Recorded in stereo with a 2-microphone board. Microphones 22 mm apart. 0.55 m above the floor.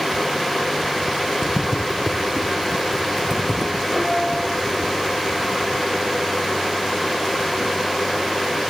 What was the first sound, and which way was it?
Footsteps, 15° right (ahead or behind).